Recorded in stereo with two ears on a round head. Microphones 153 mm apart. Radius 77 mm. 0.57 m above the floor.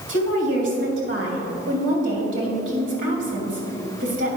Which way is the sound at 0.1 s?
75° right (ahead or behind).